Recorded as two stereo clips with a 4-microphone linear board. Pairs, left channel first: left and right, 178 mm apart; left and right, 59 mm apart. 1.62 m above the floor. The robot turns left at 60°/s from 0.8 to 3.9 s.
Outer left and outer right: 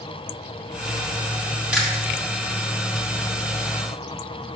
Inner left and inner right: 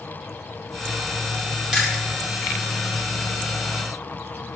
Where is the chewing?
5° right (ahead or behind), 2.5 m; by 2.0 s 15° left (ahead or behind), 2.5 m.